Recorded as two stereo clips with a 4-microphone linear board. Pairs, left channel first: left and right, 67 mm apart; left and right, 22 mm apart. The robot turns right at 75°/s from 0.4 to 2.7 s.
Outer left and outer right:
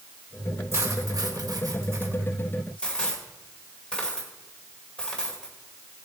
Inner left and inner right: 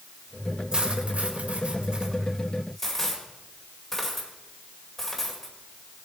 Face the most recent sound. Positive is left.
turn(degrees=15)  # may be behind; listen again after turning